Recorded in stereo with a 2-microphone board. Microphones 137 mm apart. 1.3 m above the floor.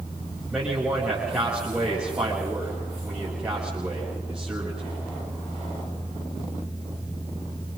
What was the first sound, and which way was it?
A man speaking, 5° right (ahead or behind).